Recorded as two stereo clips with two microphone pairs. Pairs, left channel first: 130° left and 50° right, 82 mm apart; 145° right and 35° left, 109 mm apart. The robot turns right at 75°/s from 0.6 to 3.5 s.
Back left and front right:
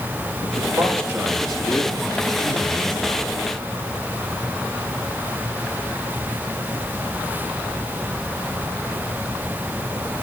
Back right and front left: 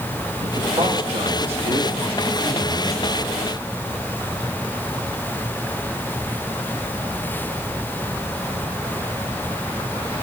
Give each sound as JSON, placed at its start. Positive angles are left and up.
{"t": 0.4, "sound": "a man speaking", "azimuth_deg": -20, "distance_m": 8.0}